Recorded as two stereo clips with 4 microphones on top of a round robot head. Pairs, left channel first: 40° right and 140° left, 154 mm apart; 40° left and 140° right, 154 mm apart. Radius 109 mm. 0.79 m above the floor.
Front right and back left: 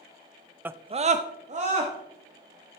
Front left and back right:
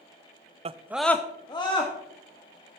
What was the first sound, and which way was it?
A scream, 145° right.